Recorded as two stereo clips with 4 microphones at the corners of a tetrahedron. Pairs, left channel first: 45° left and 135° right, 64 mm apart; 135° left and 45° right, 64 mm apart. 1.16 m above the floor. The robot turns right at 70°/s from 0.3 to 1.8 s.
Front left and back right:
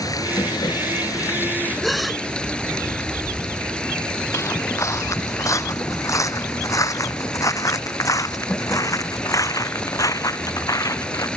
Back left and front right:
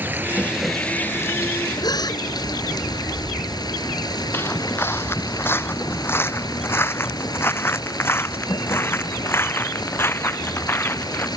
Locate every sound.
0.0 s running water: 15° left; by 11.4 s 120° left
1.8 s a gasp: 135° left
4.3 s footsteps: 80° left